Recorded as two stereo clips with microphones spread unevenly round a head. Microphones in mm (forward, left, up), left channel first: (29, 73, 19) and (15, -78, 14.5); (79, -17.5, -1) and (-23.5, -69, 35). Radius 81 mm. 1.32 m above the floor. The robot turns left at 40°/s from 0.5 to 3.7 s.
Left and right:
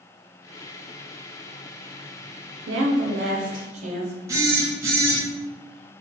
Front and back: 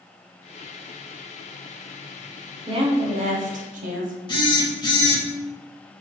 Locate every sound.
2.7 s a woman speaking: 105° right, 0.5 m; by 4.2 s 145° right, 0.5 m
4.3 s a phone buzzing: 25° right, 0.7 m